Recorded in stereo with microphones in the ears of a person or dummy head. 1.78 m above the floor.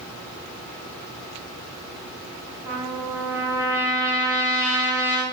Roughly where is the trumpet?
Centre.